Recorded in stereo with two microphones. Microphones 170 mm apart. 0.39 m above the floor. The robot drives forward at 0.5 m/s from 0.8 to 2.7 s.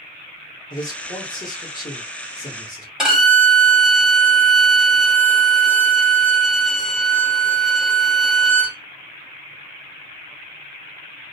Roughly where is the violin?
Centre.